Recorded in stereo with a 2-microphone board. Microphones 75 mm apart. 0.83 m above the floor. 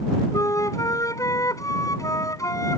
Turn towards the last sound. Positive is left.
turn(degrees=45)  # may be behind; listen again after turning